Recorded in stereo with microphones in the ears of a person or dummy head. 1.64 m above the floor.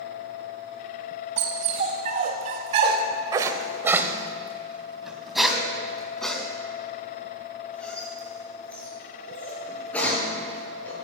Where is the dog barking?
35° right (ahead or behind), 2 m; by 10.9 s 10° left (ahead or behind), 7.5 m.